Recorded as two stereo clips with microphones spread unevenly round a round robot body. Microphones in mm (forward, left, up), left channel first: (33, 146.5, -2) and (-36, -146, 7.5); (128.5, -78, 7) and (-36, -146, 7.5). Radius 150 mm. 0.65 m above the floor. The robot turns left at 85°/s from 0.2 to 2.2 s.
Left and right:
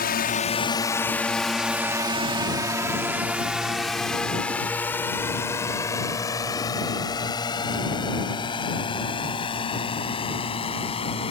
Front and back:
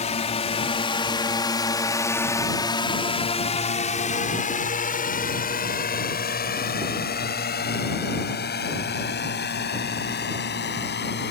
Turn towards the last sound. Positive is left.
turn(degrees=5)